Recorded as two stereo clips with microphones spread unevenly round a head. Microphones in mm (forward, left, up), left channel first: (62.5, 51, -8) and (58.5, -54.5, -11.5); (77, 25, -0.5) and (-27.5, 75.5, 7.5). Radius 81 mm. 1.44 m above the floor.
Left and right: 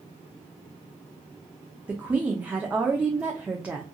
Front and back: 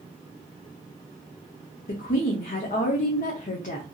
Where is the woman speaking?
15° right, 0.6 m.